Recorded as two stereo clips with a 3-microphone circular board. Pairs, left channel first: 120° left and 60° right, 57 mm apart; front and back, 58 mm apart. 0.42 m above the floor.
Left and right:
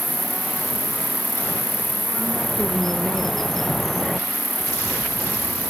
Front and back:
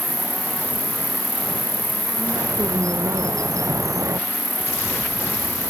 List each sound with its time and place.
0.0 s an insect: straight ahead
2.2 s a bird: 155° right